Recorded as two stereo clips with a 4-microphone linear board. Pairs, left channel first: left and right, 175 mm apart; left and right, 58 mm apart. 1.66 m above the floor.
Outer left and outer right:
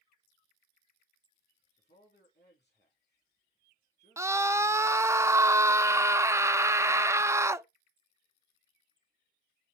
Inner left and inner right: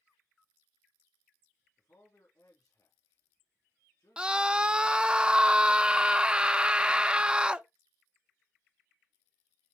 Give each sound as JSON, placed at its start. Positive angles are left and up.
{"t": 1.8, "sound": "a man speaking", "side_deg": 80, "distance_m": 3.5}
{"t": 4.2, "sound": "a scream", "side_deg": -15, "distance_m": 0.6}